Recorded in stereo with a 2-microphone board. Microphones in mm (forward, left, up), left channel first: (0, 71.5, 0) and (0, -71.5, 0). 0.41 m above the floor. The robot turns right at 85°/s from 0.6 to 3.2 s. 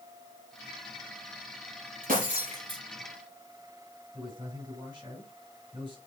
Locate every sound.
2.0 s breaking glass: 95° right, 5.5 m; by 2.8 s 25° right, 5.5 m
4.1 s a man speaking: 30° right (ahead or behind), 6 m